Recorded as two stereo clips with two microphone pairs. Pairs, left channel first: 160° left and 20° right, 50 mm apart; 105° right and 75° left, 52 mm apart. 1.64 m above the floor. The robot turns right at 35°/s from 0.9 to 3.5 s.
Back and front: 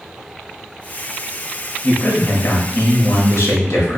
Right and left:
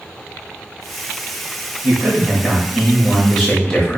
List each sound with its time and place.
1.8 s a man speaking: 115° left, 0.7 m; by 4.0 s 175° left, 0.7 m